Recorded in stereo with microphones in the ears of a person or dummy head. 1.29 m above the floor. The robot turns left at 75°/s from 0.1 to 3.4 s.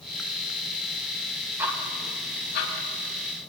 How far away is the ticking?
About 4.5 m.